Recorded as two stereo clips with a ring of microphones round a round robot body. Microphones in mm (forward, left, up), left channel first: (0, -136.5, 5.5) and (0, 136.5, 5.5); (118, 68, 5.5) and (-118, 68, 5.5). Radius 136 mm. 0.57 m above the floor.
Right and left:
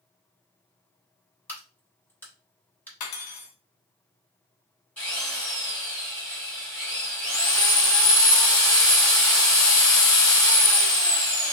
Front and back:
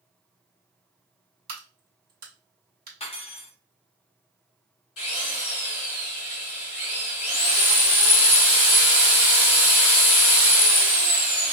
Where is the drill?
5° right, 1.8 m.